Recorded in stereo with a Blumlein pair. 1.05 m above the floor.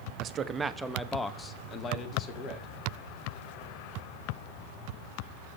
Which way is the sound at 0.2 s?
30° right.